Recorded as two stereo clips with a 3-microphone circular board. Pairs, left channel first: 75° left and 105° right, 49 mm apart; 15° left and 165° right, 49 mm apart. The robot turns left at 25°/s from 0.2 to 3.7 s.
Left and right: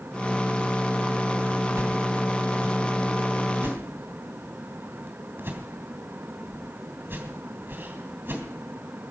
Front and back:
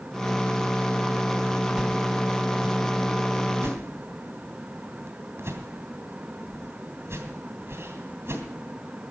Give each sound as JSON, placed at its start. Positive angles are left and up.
{"t": 1.8, "sound": "a whoosh", "azimuth_deg": -95, "distance_m": 2.5}